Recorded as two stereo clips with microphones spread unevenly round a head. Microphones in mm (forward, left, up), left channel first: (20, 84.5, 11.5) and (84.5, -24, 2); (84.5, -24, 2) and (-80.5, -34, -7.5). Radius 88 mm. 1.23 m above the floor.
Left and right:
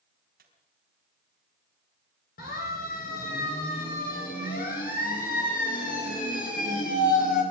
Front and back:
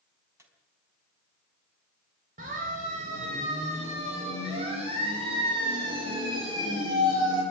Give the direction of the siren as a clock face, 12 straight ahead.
8 o'clock.